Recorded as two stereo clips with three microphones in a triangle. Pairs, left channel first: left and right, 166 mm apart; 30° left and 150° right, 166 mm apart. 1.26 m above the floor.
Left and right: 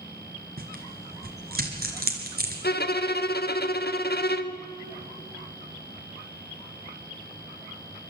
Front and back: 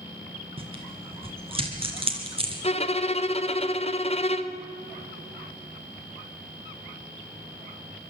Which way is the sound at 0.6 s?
95° right.